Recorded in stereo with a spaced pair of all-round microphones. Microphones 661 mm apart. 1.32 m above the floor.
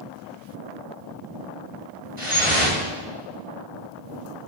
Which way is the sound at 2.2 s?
80° right.